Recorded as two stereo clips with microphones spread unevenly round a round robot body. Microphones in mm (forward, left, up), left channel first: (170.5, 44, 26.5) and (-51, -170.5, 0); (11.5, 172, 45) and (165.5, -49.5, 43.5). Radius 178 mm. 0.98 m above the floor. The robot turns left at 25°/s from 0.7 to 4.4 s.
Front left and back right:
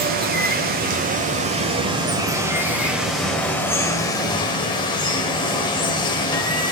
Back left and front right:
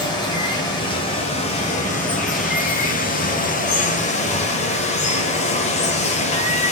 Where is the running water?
175° right, 0.8 m; by 6.7 s 95° left, 0.8 m.